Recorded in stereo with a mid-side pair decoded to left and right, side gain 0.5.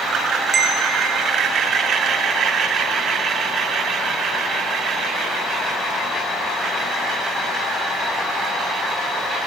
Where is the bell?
50° right, 4 m.